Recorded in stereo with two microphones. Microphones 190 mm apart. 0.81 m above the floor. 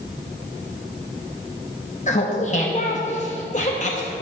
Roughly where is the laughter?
Left.